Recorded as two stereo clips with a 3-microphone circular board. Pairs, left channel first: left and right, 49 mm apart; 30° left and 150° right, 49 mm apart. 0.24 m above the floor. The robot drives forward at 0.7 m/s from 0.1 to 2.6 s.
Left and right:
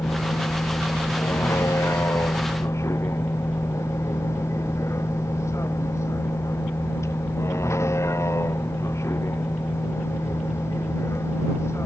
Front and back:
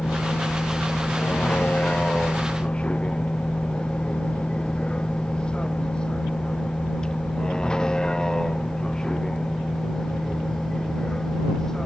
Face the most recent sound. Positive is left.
turn(degrees=110)